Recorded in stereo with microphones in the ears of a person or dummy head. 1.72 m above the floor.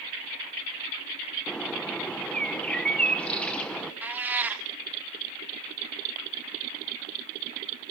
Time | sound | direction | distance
1.5 | a bird | 10° left (ahead or behind) | 1.0 m
4.0 | a cat meowing | 10° right (ahead or behind) | 1.9 m